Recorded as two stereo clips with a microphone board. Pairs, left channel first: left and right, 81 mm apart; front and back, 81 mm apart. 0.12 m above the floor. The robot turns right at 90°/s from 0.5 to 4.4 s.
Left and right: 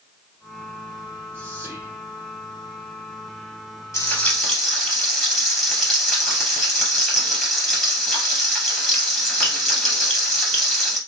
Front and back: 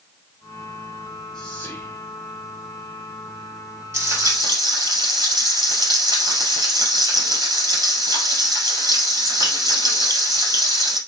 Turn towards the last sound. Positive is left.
turn(degrees=175)